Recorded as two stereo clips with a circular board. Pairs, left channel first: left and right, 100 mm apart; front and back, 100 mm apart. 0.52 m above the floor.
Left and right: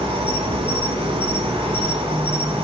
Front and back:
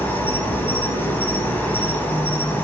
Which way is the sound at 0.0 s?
70° right.